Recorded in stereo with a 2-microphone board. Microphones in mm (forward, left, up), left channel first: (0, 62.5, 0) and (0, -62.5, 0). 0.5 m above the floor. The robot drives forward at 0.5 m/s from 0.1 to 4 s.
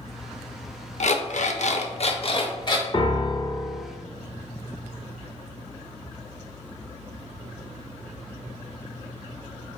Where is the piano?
40° left (ahead or behind), 0.5 m; by 3.9 s 35° left (ahead or behind), 0.6 m.